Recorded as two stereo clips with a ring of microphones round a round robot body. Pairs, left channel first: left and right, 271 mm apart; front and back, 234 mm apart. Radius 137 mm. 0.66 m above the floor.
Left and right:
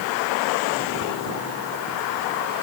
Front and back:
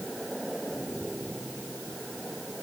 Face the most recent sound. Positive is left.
No sound to turn to.